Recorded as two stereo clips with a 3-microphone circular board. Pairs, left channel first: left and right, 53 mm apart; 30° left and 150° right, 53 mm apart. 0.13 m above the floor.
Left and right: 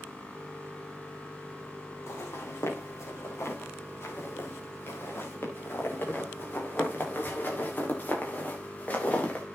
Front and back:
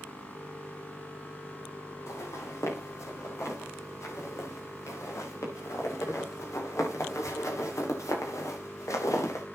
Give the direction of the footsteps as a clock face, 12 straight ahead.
10 o'clock.